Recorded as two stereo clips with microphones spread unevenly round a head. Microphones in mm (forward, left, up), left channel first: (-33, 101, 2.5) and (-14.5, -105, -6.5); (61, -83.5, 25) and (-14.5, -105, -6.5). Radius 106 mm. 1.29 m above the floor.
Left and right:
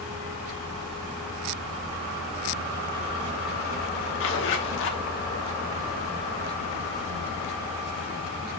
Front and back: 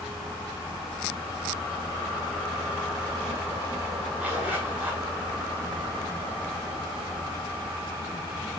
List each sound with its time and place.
4.2 s a zipper: 100° left, 1.3 m